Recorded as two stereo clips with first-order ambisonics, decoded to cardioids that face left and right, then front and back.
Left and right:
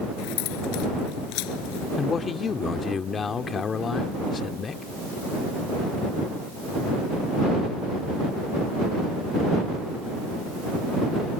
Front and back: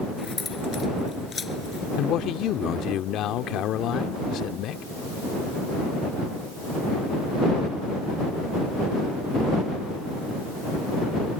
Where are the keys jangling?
75° left.